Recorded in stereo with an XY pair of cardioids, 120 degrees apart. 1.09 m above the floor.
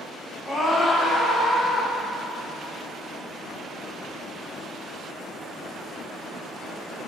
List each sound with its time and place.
0.5 s a scream: 20° left, 4 m; by 1.9 s 30° left, 5 m